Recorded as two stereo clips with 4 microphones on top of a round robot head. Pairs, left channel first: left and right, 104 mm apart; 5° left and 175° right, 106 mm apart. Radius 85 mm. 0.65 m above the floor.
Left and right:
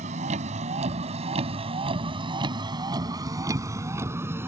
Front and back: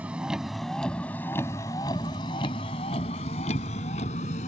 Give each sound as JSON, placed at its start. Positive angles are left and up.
{"t": 0.0, "sound": "a vehicle", "azimuth_deg": -95}